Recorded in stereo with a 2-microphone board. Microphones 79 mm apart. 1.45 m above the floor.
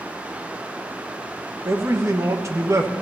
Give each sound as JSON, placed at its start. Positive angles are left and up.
{"t": 1.6, "sound": "a man speaking", "side_deg": -45, "distance_m": 1.2}